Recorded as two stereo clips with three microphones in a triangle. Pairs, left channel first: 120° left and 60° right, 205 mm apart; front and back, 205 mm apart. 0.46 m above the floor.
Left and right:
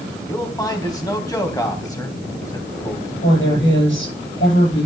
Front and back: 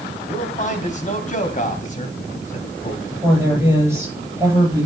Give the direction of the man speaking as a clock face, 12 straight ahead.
10 o'clock.